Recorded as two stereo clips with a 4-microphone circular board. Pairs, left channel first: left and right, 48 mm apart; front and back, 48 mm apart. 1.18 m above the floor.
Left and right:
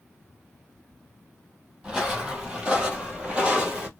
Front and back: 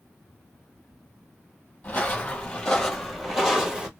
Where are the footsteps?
25° right, 1.4 m; by 3.9 s 135° right, 1.4 m.